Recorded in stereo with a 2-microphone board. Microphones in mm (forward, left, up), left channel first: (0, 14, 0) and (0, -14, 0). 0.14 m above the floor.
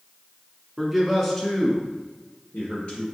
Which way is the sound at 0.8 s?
10° right (ahead or behind).